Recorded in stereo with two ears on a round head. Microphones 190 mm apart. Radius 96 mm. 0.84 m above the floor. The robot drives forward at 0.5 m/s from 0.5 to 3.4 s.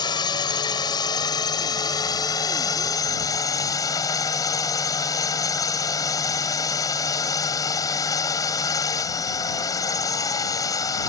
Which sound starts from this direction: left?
A drone, at 0.0 s.